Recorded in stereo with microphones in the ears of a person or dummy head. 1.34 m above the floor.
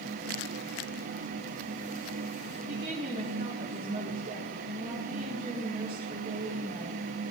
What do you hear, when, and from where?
2.7 s a woman speaking: 30° right (ahead or behind), 2 m